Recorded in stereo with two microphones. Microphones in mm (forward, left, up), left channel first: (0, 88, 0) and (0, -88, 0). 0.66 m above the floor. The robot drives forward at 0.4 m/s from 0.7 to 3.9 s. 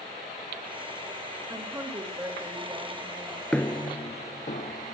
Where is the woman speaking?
20° right (ahead or behind), 3 m; by 3.4 s 15° right (ahead or behind), 3.5 m.